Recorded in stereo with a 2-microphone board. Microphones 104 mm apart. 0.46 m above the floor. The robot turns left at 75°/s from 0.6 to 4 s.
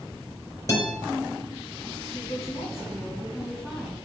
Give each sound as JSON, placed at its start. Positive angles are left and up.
{"t": 0.7, "sound": "a guitar", "side_deg": 30, "distance_m": 4.5}
{"t": 2.0, "sound": "a woman speaking", "azimuth_deg": 125, "distance_m": 4.0}